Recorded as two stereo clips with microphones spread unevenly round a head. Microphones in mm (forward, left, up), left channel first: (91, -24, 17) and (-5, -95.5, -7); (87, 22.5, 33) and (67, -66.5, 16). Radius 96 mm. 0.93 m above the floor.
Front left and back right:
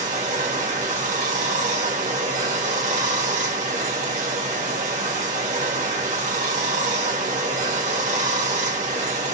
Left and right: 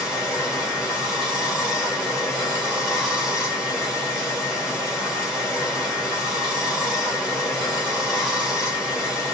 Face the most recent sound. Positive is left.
turn(degrees=175)